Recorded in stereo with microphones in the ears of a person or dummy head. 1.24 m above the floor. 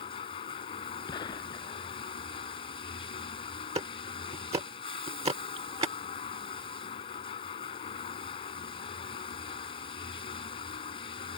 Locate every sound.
0.0 s running water: 35° left (ahead or behind)
1.1 s a gunshot: 30° left (ahead or behind)
3.8 s ticking: 25° right (ahead or behind)